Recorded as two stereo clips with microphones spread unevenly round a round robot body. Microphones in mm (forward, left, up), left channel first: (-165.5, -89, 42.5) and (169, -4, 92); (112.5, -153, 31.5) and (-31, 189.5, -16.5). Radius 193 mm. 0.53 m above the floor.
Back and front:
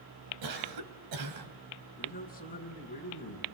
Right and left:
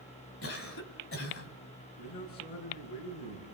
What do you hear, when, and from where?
0.4 s a cough: 10° right, 4 m
2.0 s a man speaking: 100° right, 8 m